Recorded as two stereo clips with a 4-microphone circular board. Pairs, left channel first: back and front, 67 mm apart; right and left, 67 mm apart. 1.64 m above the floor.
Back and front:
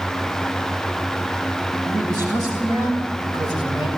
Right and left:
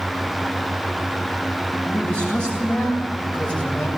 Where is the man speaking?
25° right, 8 m; by 3.9 s 20° right, 5.5 m.